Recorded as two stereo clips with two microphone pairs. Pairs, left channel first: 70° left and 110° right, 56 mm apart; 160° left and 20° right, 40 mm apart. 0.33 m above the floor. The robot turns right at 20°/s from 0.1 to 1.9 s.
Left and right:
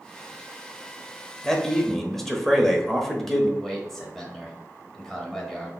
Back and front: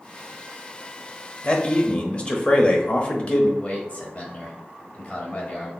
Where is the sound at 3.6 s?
150° left, 1.5 m.